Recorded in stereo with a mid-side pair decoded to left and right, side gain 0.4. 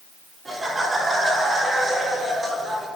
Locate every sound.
0.5 s laughter: 30° right, 3 m; by 2.9 s 35° right, 5 m